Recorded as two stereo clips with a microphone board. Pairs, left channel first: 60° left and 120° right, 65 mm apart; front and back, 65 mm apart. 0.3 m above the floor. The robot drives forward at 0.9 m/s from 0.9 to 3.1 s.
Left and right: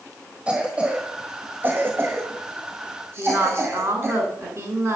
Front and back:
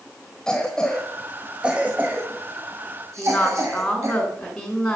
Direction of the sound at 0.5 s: 65° right.